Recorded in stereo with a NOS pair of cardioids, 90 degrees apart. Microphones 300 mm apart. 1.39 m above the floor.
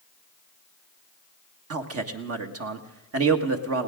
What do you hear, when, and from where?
1.7 s a man speaking: 50° right, 1.7 m